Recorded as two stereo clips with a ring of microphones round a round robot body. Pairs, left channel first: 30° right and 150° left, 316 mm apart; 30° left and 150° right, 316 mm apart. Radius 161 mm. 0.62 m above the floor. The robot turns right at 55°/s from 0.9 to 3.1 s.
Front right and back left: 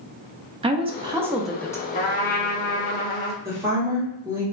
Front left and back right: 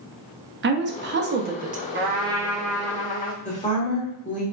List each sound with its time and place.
0.6 s a woman speaking: 150° right, 0.7 m; by 1.8 s 100° right, 0.7 m
1.9 s a trumpet: 95° right, 0.8 m; by 3.4 s 30° right, 0.8 m
3.5 s a woman speaking: 75° left, 1.3 m